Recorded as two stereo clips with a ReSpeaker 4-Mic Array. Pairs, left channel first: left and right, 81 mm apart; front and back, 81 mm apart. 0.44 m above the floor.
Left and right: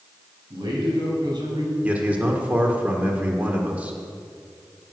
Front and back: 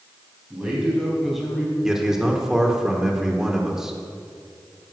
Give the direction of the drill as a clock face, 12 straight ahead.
No drill in this recording.